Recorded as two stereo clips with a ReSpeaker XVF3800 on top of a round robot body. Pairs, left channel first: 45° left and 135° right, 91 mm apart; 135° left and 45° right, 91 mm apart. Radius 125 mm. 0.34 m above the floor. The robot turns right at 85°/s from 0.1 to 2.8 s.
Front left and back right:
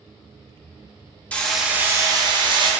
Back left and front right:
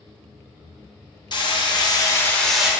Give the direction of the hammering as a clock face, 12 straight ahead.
8 o'clock.